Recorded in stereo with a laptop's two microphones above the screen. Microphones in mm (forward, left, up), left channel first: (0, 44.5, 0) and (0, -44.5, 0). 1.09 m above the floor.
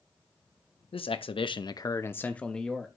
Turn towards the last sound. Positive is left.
turn(degrees=0)  # may be behind; listen again after turning